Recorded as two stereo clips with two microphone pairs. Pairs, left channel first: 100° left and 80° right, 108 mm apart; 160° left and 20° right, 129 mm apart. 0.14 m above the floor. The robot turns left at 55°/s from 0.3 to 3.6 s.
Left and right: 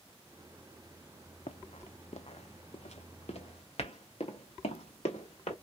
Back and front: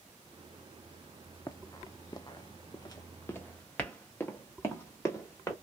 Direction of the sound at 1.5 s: 95° left.